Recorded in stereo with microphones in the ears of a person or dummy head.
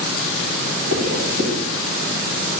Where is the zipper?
80° right, 1.8 m.